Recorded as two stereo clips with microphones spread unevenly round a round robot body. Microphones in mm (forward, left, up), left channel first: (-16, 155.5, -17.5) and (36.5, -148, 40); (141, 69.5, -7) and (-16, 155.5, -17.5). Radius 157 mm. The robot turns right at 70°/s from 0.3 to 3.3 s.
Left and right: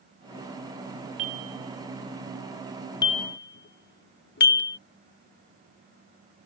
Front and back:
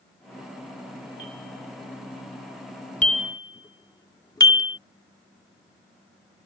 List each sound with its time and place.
1.2 s a bell: 105° right; by 4.8 s 45° left